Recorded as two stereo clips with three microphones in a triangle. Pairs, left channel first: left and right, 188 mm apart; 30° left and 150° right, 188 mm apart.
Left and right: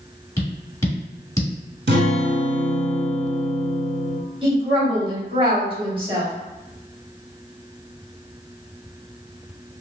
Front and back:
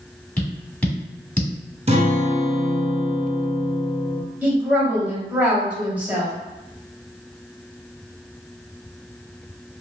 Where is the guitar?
95° right, 0.9 m.